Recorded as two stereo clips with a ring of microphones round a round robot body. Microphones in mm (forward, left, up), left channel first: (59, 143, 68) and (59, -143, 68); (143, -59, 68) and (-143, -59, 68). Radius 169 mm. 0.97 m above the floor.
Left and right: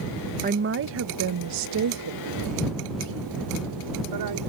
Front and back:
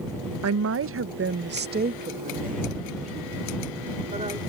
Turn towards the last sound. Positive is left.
turn(degrees=-110)